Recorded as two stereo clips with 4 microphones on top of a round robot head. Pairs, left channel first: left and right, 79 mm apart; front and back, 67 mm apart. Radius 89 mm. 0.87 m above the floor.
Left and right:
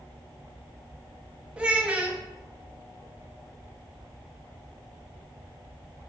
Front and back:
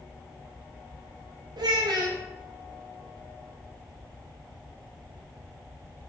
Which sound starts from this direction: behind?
A child speaking, at 1.6 s.